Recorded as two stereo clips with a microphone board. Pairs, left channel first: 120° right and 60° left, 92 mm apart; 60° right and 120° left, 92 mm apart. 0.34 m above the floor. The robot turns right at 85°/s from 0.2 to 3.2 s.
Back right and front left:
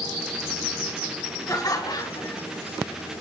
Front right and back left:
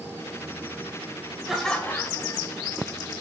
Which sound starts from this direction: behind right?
Laughter, at 1.5 s.